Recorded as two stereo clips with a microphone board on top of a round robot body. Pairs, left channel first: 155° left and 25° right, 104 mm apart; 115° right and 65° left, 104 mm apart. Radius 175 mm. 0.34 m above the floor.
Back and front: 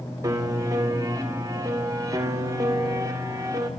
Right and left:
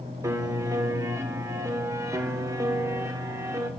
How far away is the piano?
About 2 m.